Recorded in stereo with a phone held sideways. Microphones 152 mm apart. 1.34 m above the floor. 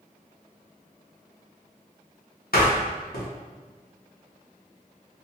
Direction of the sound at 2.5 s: 85° left.